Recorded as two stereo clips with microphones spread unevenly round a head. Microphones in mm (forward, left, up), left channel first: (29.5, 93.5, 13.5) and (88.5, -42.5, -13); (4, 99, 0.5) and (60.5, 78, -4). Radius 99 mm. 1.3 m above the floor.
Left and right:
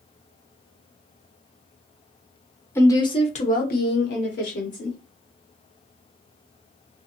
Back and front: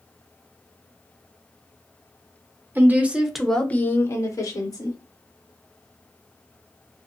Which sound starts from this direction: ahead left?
A woman speaking, at 2.8 s.